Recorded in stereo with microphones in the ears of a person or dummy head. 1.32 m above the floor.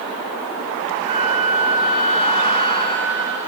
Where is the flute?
30° right (ahead or behind), 1.1 m.